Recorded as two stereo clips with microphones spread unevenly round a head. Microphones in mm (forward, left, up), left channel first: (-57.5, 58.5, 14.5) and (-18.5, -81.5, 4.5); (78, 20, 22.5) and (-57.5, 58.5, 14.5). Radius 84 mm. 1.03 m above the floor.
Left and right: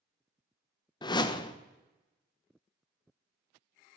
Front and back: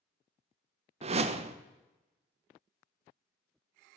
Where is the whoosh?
160° left, 0.7 m.